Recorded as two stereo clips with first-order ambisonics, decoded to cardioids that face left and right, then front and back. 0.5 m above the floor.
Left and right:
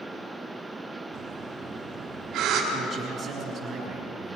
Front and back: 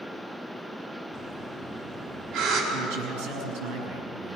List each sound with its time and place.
1.1 s breathing: 140° right, 4.5 m
2.7 s a man speaking: 165° right, 6.5 m